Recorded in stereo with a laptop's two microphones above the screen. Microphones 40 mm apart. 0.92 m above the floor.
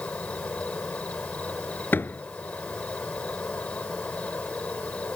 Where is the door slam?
50° left (ahead or behind).